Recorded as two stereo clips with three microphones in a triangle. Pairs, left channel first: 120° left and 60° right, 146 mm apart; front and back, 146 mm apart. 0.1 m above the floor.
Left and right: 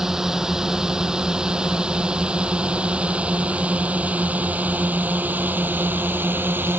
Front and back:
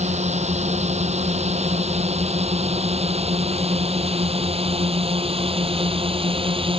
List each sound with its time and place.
0.0 s a drone: 145° right; by 6.8 s 135° right